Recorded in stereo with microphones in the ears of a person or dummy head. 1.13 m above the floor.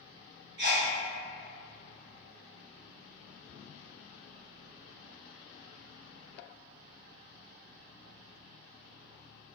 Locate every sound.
0.6 s a sneeze: 55° right (ahead or behind), 1.0 m